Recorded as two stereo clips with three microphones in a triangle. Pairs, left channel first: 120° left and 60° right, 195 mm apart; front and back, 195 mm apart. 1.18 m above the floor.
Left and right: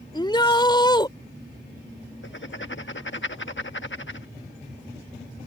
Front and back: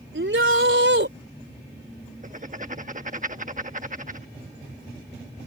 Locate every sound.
0.1 s a shout: 170° right
2.2 s writing: 130° left